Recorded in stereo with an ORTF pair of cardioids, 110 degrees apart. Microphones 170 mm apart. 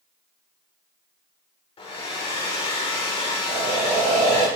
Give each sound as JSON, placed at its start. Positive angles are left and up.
{"t": 1.8, "sound": "a hair dryer", "azimuth_deg": 35, "distance_m": 2.5}
{"t": 3.5, "sound": "breathing", "azimuth_deg": -55, "distance_m": 3.5}